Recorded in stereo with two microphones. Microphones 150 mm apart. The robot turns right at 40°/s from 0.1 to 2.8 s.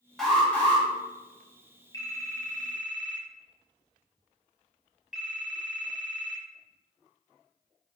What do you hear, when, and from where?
0.2 s an alarm: centre (ahead or behind), 1.3 m; by 0.8 s 15° left (ahead or behind), 1.3 m
1.9 s a phone ringing: 150° left, 0.9 m; by 6.5 s 175° right, 0.9 m